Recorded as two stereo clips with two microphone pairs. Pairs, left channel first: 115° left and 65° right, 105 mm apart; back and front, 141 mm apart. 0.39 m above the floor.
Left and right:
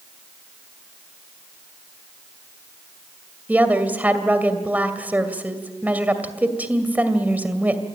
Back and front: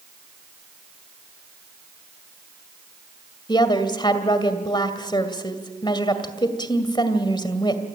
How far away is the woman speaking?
About 2 m.